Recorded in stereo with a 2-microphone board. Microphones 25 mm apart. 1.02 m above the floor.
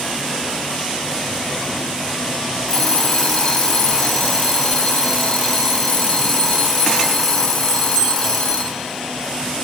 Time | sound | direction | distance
2.7 | an alarm clock | 10° left (ahead or behind) | 1.4 m